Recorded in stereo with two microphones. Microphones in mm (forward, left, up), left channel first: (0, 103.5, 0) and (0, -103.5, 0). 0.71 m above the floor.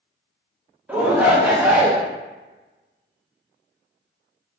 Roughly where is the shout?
Centre.